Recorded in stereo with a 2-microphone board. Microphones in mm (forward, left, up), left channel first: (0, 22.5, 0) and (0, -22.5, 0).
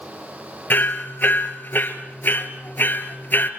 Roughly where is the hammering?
Left.